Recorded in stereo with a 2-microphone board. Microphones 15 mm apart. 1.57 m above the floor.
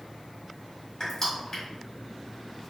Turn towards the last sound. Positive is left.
turn(degrees=35)  # may be behind; listen again after turning